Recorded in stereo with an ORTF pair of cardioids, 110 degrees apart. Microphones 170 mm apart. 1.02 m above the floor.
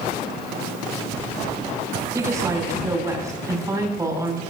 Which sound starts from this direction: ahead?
A woman speaking, at 2.1 s.